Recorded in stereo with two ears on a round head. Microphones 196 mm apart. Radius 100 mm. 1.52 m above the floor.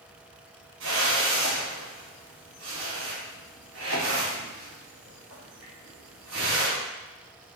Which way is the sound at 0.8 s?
60° right (ahead or behind).